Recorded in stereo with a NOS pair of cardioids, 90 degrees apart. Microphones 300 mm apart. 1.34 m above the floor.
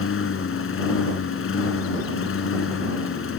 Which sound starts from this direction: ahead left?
A lawn mower, at 0.0 s.